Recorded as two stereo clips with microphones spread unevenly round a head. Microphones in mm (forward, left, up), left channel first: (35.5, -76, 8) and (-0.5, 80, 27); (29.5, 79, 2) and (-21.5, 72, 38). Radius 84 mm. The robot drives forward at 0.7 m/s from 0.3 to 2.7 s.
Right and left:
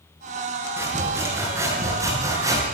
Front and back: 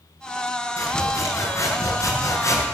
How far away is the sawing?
About 8.5 m.